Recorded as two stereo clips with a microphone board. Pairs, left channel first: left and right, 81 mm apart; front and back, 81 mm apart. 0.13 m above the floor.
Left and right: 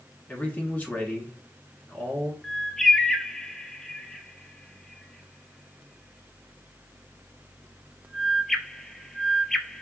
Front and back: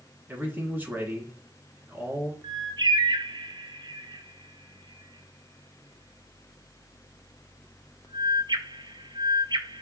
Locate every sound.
0.3 s a man speaking: 140° left, 1.1 m
2.4 s a bird: 175° left, 0.5 m